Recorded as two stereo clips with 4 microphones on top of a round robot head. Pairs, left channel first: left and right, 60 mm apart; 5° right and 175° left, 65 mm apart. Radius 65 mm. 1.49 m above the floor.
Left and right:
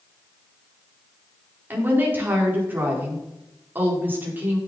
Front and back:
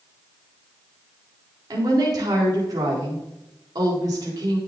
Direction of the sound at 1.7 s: 150° right.